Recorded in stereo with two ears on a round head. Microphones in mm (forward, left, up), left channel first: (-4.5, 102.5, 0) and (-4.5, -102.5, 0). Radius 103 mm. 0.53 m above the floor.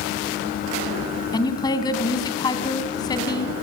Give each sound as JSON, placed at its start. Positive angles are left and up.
{"t": 1.3, "sound": "a woman speaking", "side_deg": 20, "distance_m": 3.5}